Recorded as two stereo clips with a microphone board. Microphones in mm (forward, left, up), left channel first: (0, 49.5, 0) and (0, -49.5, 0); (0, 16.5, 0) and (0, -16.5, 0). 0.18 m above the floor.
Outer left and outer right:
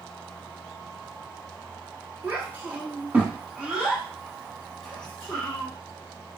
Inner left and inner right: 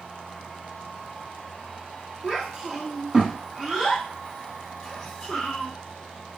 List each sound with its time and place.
2.2 s a child speaking: 20° right (ahead or behind), 1.8 m; by 5.7 s 15° left (ahead or behind), 1.2 m